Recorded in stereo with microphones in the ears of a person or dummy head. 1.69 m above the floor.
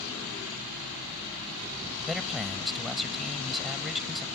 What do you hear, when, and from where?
2.0 s a man speaking: 5° right (ahead or behind)